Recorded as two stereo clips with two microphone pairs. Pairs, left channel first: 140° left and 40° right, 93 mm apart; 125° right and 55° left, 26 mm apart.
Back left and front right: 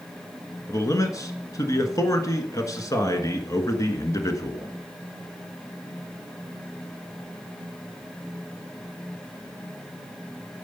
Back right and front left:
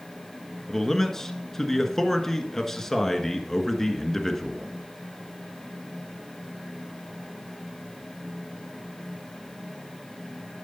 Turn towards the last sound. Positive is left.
turn(degrees=165)